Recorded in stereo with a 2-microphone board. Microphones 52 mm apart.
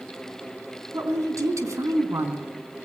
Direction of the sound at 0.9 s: 75° right (ahead or behind).